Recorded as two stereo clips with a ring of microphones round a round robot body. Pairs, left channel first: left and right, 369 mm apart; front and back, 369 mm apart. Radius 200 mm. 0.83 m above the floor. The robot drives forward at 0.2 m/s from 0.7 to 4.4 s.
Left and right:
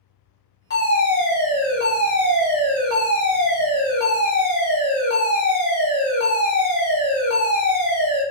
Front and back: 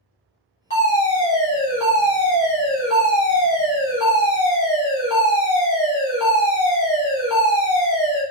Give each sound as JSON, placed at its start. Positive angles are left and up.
{"t": 0.7, "sound": "a fire alarm", "azimuth_deg": 55, "distance_m": 1.5}